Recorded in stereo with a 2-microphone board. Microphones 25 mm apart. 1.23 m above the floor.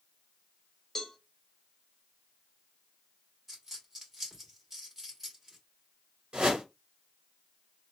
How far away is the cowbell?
About 1.1 m.